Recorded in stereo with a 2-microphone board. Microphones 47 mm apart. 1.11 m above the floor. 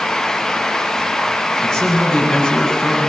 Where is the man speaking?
10° left (ahead or behind), 9.5 m.